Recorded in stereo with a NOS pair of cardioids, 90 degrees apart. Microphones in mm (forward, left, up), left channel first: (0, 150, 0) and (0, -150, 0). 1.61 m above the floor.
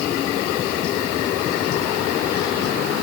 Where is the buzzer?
No buzzer in this recording.